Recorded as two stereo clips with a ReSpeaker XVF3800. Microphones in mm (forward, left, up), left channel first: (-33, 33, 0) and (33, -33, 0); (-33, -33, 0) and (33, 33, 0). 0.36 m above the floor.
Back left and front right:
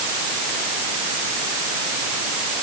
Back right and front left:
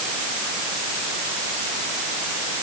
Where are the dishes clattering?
I don't hear dishes clattering.